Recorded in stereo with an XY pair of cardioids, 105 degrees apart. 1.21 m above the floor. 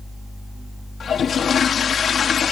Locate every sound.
1.0 s a toilet flushing: 50° left